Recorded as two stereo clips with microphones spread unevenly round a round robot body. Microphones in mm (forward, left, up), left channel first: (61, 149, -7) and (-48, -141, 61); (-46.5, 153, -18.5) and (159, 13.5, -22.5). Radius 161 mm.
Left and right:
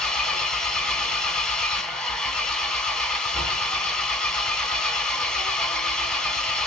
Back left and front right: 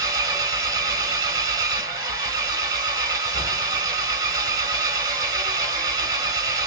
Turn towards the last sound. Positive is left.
turn(degrees=15)